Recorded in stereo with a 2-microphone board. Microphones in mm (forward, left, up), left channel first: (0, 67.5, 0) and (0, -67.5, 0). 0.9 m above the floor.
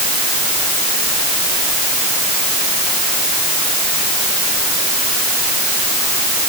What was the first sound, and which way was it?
Only background noise.